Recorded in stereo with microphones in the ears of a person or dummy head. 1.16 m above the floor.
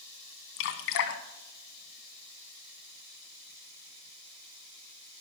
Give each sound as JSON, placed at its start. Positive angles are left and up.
{"t": 0.6, "sound": "dripping", "side_deg": 60, "distance_m": 1.8}